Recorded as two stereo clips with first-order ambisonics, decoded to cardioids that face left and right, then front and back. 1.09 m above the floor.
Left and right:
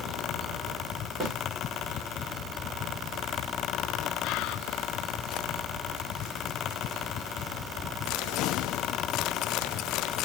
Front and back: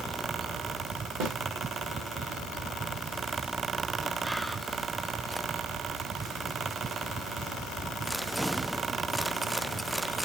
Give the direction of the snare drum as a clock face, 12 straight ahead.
6 o'clock.